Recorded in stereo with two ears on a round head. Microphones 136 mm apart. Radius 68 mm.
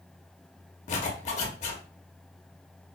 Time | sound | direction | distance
0.9 | a zipper | 50° left (ahead or behind) | 0.7 m